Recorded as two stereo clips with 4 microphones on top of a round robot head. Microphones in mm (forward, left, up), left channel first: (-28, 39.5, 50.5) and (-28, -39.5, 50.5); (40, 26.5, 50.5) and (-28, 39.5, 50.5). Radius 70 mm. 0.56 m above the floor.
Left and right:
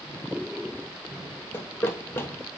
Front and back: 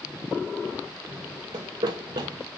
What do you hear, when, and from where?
1.5 s running footsteps: 150° left, 1.0 m